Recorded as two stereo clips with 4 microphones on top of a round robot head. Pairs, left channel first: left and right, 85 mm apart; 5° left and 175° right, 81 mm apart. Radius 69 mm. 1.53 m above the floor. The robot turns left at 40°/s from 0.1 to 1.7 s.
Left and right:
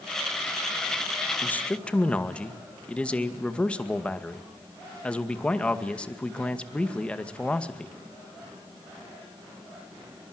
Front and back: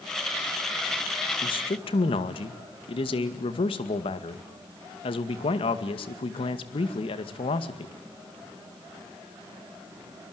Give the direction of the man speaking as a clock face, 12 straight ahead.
11 o'clock.